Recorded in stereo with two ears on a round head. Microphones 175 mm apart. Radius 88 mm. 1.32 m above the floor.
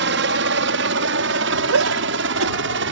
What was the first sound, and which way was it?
A helicopter, 65° right (ahead or behind).